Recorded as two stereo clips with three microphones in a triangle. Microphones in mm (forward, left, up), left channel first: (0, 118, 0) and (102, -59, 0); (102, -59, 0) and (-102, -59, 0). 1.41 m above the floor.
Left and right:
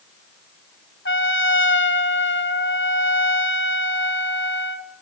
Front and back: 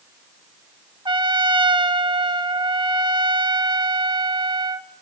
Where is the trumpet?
115° left, 1.3 m.